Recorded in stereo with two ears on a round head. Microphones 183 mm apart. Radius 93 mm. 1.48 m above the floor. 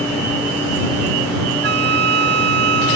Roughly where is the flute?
Right.